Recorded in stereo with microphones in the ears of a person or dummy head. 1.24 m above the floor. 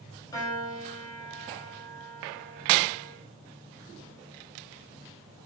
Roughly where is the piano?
Left.